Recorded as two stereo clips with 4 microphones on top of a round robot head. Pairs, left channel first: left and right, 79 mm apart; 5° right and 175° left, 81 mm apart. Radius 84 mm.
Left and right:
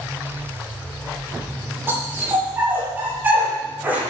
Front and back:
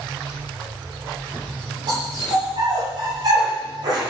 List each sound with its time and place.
1.9 s a dog barking: 150° right, 9.5 m; by 4.0 s 160° right, 10 m